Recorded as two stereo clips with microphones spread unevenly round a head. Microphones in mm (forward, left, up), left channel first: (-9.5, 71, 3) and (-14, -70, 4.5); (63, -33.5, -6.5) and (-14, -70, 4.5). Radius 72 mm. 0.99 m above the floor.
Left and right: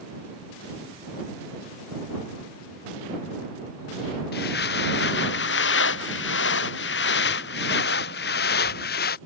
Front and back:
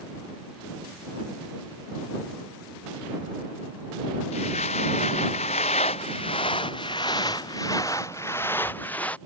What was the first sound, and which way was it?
Footsteps, 60° left.